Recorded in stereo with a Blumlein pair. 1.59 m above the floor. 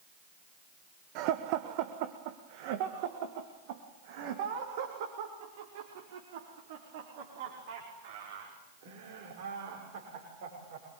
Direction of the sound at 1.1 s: 40° right.